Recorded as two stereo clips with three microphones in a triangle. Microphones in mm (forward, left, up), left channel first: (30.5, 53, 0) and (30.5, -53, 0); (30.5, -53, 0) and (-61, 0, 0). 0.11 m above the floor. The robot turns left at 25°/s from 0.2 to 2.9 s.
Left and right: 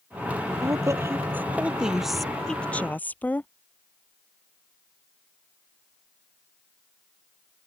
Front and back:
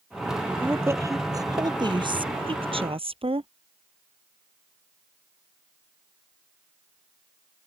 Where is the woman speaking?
140° right; by 3.5 s 160° left.